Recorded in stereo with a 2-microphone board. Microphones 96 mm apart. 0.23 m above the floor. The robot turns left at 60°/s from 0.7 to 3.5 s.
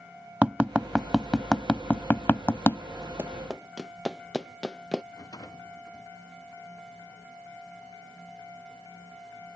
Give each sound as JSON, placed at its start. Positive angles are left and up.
{"t": 0.4, "sound": "tapping", "side_deg": -15}
{"t": 3.2, "sound": "running footsteps", "side_deg": -25}
{"t": 5.1, "sound": "a rattle", "side_deg": 45}